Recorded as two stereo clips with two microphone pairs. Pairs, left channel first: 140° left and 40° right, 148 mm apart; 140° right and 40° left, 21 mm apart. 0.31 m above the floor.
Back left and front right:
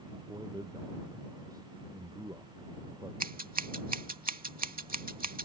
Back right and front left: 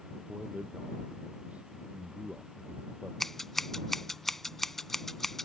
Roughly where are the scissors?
Ahead right.